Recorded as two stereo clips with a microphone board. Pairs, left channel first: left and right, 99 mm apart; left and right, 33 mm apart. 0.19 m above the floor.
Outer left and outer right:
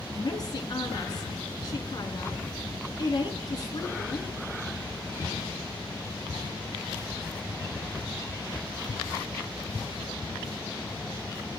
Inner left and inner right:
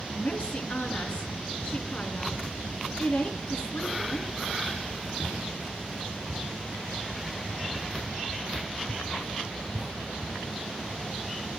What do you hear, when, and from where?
0.1 s a woman speaking: 45° left (ahead or behind), 2.5 m